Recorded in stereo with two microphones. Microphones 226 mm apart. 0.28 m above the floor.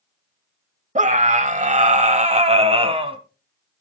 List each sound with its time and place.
0.9 s a scream: 35° right (ahead or behind), 1.0 m; by 3.2 s 25° right (ahead or behind), 1.6 m